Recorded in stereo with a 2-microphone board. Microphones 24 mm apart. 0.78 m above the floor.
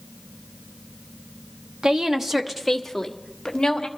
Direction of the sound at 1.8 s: 30° right (ahead or behind).